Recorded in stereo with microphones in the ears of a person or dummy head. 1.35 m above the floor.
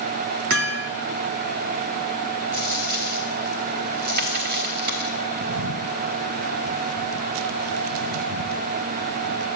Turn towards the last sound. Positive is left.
turn(degrees=-75)  # may be behind; listen again after turning